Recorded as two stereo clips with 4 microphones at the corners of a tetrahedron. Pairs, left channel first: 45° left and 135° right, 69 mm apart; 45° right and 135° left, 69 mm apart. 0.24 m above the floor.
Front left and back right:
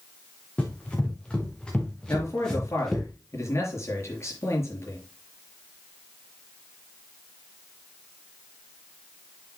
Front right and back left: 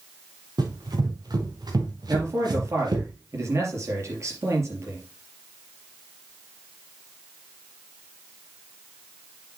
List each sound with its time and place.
0.6 s running footsteps: 120° left, 4 m; by 3.1 s 130° left, 2.5 m
2.1 s a man speaking: 90° left, 4.5 m